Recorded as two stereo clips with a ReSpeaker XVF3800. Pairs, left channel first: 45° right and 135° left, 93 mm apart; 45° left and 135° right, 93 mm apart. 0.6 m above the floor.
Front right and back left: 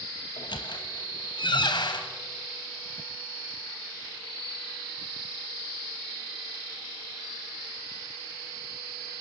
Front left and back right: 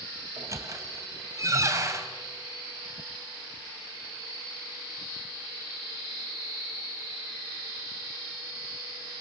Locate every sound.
0.4 s a squeak: 80° right, 2.5 m